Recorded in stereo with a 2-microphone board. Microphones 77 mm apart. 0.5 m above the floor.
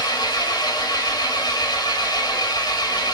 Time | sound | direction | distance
0.0 | an engine running | 65° left (ahead or behind) | 2 m